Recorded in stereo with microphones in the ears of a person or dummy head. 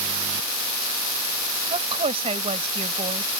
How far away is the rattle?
No rattle in this recording.